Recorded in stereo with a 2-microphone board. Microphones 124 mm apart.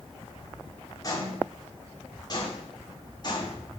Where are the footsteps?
30° left (ahead or behind), 8 m; by 3.6 s 35° left (ahead or behind), 9 m.